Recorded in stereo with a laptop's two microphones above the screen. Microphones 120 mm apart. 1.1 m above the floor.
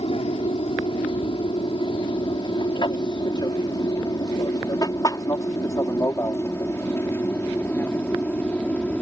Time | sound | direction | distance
0.0 | an aircraft | 50° left (ahead or behind) | ?